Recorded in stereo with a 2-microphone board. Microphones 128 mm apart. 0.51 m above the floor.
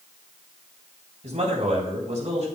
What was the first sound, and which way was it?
A man speaking, 55° right (ahead or behind).